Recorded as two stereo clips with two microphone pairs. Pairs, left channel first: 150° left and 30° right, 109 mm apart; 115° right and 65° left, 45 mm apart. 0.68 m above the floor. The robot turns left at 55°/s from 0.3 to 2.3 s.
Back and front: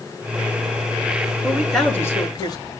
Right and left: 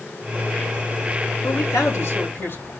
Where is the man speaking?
105° right, 6.5 m; by 2.7 s 155° right, 6.5 m.